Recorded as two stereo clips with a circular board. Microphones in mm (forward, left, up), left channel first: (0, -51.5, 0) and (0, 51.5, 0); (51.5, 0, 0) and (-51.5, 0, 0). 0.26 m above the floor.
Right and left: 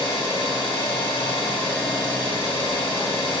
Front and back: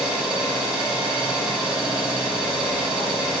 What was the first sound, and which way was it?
An engine running, 100° right.